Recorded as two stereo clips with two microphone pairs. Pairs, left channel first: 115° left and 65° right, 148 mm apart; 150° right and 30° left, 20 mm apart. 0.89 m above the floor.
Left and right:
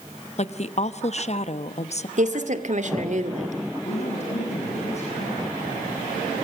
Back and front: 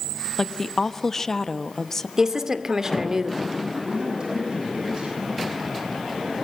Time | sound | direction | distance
0.4 | a woman speaking | 150° left | 1.1 m
2.2 | a woman speaking | 30° right | 2 m
3.8 | a man speaking | 75° left | 7.5 m